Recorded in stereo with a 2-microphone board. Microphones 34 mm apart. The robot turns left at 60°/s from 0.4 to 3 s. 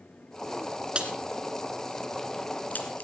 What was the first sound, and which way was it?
A crack, 35° right (ahead or behind).